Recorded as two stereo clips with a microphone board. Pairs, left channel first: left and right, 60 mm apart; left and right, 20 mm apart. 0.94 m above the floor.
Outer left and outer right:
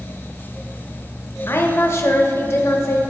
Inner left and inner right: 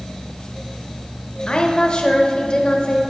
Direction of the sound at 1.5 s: 45° left (ahead or behind).